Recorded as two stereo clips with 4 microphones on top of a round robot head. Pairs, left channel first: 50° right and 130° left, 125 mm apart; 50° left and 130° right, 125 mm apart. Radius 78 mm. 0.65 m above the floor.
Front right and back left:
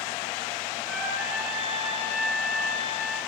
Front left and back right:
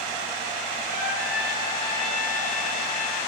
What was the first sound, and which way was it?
A trumpet, 150° left.